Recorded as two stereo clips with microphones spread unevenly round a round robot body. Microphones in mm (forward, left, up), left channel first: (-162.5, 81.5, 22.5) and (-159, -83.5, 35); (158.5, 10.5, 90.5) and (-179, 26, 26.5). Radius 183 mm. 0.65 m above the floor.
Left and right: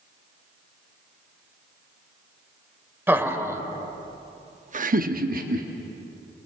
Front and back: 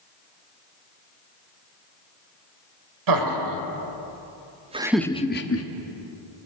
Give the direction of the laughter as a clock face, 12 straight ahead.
6 o'clock.